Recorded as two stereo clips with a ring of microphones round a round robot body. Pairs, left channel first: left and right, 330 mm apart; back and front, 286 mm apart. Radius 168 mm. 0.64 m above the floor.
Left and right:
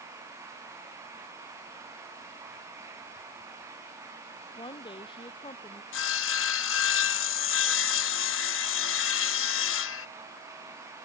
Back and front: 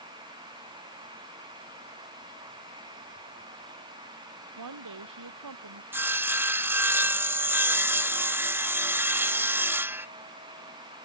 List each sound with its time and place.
4.6 s a woman speaking: 15° left
5.9 s sawing: 80° left